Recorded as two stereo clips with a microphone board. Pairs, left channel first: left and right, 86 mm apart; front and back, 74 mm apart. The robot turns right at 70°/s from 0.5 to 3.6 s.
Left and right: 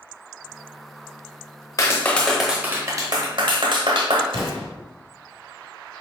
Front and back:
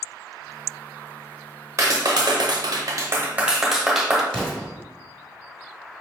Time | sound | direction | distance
1.8 | a clap | 140° left | 0.8 m
4.3 | an explosion | 80° right | 1.5 m